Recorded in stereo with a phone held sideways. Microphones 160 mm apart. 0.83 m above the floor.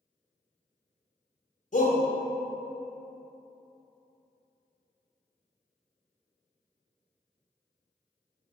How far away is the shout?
About 0.6 m.